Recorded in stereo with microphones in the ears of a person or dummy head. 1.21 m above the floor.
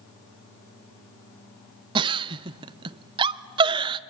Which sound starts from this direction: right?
A giggle, at 1.9 s.